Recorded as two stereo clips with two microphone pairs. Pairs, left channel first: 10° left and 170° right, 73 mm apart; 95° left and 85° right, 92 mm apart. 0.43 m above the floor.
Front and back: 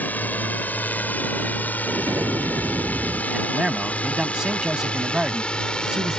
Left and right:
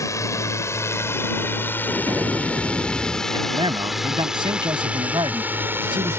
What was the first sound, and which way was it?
A drone, 65° left.